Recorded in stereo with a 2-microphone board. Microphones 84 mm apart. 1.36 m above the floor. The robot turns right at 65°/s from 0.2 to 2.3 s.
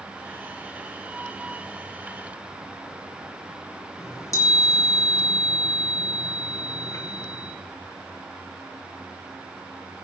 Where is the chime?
35° left (ahead or behind), 4.5 m.